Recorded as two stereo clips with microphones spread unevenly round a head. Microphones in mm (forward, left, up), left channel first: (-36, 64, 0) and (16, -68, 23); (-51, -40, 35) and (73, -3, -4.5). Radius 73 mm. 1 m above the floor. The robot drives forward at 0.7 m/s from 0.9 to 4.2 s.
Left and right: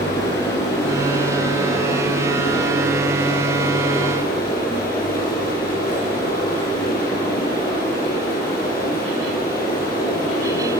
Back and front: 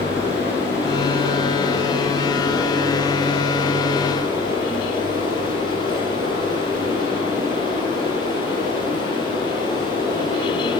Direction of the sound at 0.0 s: 125° left.